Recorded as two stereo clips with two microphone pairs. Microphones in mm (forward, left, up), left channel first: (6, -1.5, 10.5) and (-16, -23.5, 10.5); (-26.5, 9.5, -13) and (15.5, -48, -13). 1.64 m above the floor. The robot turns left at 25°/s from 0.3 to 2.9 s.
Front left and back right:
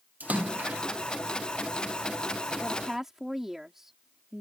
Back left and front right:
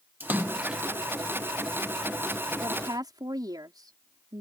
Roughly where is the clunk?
I don't hear a clunk.